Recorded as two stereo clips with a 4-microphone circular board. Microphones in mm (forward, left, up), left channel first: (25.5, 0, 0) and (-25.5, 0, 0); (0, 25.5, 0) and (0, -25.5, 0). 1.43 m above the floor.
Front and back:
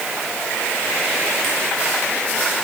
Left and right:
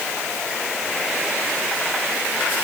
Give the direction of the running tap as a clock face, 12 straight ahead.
I don't hear a running tap.